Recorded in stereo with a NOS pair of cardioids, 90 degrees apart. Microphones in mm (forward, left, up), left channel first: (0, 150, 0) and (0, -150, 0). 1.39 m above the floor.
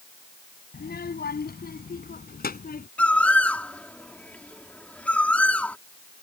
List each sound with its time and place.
0.7 s a child speaking: 35° left; by 2.9 s 30° left
3.0 s a bird: 5° left